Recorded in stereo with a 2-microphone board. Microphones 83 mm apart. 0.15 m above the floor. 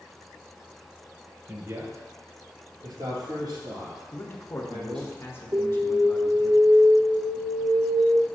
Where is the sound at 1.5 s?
35° right (ahead or behind), 2.5 m; by 5.1 s 70° right (ahead or behind), 4 m.